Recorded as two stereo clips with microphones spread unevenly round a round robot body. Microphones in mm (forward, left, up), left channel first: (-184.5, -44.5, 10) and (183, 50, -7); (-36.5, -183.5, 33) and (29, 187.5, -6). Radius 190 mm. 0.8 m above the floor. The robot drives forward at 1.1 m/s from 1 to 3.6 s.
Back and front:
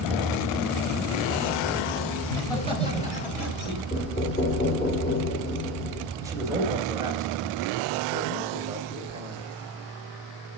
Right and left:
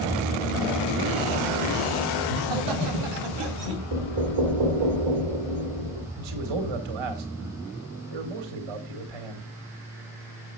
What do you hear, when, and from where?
2.2 s laughter: 110° left, 3.5 m; by 3.8 s 130° left, 4.5 m
3.9 s knocking: 120° left, 2.5 m
6.2 s a man speaking: 95° left, 2 m